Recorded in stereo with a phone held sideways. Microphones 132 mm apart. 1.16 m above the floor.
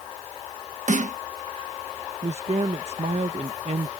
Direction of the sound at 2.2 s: 55° right (ahead or behind).